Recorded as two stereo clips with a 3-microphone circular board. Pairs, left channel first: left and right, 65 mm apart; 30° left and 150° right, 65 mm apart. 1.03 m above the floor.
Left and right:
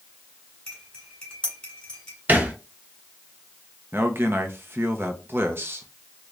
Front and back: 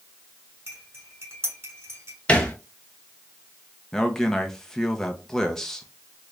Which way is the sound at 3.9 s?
50° right.